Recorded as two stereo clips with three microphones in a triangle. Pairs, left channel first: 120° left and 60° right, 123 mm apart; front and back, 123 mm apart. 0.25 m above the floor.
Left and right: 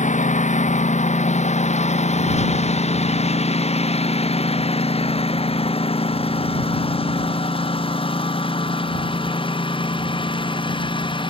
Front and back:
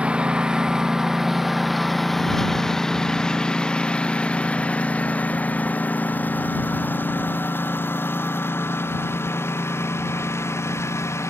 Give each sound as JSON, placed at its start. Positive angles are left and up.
{"t": 0.0, "sound": "a lawn mower", "azimuth_deg": 100}